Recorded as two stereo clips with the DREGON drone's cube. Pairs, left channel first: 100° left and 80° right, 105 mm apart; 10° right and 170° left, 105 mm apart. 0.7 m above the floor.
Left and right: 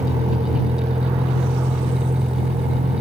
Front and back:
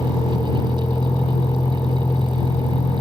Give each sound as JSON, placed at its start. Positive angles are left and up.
{"t": 0.0, "sound": "a vehicle", "azimuth_deg": -70}